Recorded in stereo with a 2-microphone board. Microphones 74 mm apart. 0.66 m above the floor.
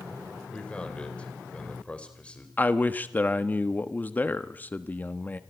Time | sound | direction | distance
0.5 | a man speaking | 15° left (ahead or behind) | 3.5 m
2.6 | a man speaking | 20° left (ahead or behind) | 1.1 m